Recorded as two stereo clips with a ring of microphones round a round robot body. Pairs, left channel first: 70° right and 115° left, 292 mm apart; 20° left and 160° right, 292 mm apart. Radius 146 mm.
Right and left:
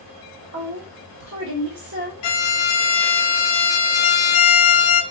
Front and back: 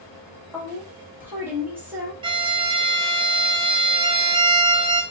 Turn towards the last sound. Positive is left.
turn(degrees=-80)